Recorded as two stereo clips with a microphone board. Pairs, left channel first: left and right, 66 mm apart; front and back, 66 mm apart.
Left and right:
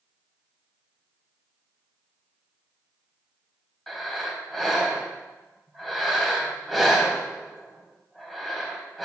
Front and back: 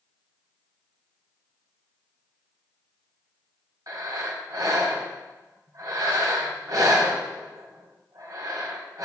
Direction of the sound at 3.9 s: Straight behind.